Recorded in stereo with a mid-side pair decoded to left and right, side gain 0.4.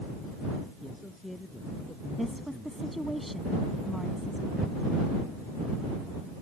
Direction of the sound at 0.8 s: 10° left.